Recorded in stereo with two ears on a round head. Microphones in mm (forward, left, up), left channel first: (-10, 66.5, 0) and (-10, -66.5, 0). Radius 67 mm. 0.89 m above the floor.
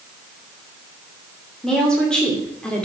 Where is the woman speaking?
5° left (ahead or behind), 3 m.